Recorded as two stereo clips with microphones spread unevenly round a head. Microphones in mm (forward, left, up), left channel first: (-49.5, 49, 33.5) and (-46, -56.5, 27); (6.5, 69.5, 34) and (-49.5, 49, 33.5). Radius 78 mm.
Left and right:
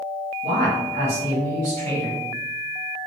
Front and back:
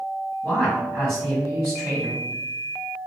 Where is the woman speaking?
70° right, 1.7 m.